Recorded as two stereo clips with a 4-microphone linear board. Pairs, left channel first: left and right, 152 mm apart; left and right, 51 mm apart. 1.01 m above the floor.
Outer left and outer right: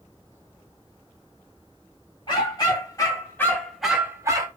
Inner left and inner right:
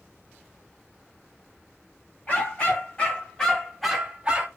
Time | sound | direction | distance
2.3 | a dog barking | 30° left (ahead or behind) | 1.4 m